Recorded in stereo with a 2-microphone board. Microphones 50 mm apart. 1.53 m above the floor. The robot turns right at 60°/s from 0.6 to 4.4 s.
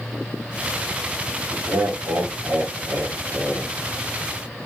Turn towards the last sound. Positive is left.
turn(degrees=40)